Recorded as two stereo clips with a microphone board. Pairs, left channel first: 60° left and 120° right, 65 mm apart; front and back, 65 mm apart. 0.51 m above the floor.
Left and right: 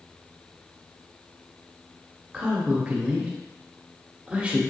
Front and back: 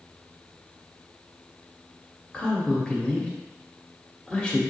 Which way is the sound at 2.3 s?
65° right.